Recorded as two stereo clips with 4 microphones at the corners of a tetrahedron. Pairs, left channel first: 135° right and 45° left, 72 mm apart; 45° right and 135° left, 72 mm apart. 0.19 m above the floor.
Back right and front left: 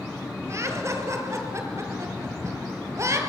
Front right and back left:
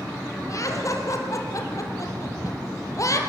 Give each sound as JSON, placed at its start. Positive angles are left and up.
{"t": 0.5, "sound": "laughter", "azimuth_deg": -5, "distance_m": 5.0}